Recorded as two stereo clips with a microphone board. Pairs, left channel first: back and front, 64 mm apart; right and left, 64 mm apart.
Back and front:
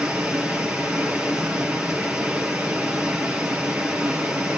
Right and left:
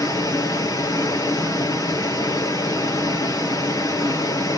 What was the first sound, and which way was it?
Running water, 75° right.